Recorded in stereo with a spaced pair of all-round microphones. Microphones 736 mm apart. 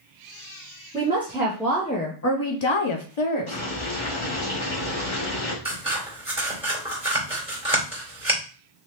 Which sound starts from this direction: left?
Boiling, at 3.5 s.